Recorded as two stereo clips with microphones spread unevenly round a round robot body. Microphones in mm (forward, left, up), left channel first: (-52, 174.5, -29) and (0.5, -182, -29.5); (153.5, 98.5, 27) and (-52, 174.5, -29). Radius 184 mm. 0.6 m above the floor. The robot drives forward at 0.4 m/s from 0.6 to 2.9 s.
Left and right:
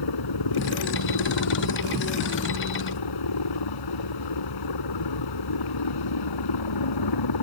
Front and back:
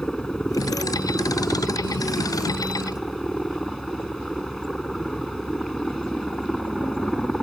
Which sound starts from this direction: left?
A helicopter, at 0.0 s.